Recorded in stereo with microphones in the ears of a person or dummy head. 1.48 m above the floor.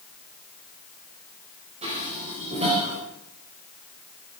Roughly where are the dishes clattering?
Right.